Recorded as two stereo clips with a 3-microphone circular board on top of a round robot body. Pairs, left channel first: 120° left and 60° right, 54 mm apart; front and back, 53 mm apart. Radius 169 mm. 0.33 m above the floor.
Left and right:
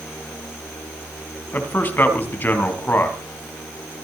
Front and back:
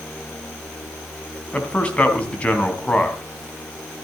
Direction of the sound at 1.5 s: 70° left.